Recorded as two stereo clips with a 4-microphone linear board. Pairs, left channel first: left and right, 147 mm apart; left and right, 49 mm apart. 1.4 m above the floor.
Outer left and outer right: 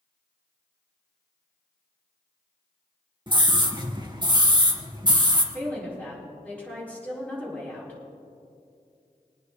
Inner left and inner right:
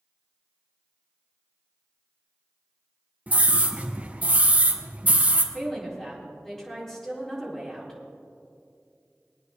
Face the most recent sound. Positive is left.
turn(degrees=10)  # may be behind; listen again after turning